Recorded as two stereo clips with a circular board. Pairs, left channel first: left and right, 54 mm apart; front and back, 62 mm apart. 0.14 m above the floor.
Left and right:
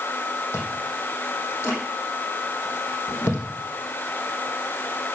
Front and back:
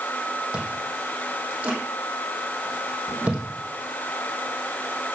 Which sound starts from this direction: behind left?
Chewing, at 0.5 s.